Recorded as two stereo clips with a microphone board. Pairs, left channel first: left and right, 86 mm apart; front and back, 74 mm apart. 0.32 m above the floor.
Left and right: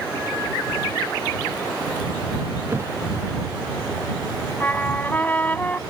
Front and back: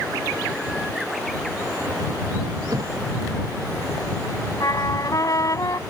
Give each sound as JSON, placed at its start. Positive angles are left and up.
{"t": 2.7, "sound": "a thud", "azimuth_deg": -145}
{"t": 4.6, "sound": "a trumpet", "azimuth_deg": 25}